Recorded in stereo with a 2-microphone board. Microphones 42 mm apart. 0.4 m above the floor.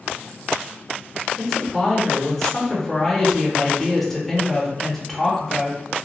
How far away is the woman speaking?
About 0.9 m.